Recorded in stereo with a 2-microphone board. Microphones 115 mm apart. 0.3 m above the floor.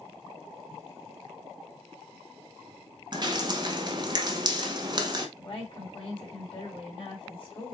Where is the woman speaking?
55° left (ahead or behind), 2.5 m.